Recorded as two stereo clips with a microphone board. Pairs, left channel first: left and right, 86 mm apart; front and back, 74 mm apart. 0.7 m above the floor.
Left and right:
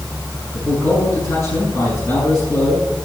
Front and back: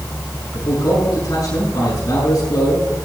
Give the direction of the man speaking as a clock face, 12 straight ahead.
11 o'clock.